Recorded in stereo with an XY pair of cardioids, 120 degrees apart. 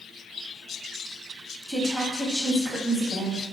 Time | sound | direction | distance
1.7 | a woman speaking | 15° left | 0.7 m